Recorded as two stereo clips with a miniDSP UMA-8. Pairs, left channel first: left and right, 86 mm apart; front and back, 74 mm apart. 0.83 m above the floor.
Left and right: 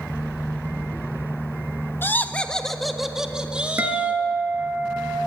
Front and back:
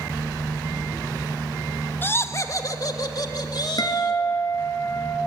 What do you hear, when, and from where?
2.0 s laughter: 40° left, 1.2 m; by 4.2 s 20° right, 2.5 m
3.8 s a guitar: 25° right, 3 m